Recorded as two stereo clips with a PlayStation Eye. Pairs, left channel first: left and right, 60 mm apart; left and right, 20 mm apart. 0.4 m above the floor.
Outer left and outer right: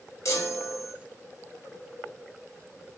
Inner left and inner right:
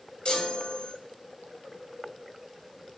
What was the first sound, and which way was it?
A chime, 60° left (ahead or behind).